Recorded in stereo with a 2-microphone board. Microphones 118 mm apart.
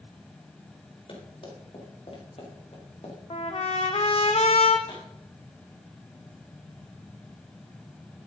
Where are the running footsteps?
50° left (ahead or behind), 7 m; by 3.2 s 60° left (ahead or behind), 5 m.